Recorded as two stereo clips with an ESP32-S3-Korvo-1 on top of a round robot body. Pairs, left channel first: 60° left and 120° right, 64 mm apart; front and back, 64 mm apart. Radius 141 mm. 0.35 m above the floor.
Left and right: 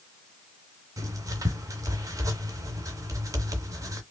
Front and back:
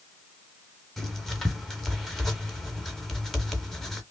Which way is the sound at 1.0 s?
85° right.